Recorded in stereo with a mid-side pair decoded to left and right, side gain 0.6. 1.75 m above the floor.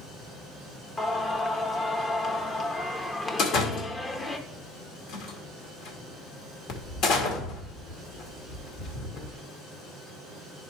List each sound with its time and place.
1.0 s singing: 25° left, 1.1 m
3.4 s a door slam: 65° left, 1.9 m